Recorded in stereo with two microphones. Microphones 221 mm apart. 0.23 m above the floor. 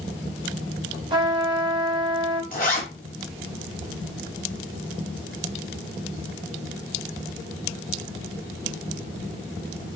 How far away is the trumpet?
About 0.8 m.